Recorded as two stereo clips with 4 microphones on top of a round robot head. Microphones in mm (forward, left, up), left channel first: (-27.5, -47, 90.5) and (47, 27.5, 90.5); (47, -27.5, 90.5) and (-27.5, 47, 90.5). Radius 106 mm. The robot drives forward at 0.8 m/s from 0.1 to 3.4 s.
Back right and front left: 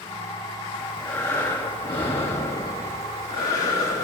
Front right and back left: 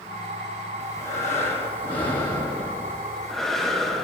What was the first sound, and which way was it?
Breathing, 60° right.